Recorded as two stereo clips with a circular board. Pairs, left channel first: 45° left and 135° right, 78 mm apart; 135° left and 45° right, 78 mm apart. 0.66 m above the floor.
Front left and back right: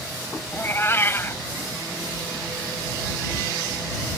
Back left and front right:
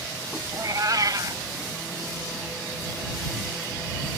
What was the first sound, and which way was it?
A cat meowing, 10° right.